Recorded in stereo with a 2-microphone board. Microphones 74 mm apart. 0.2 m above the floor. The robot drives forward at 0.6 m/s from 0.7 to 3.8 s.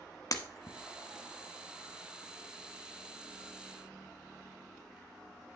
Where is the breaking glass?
50° left (ahead or behind), 0.9 m.